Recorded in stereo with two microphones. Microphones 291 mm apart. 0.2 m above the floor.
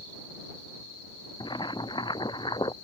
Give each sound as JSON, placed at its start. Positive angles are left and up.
{"t": 1.4, "sound": "boiling", "side_deg": 15}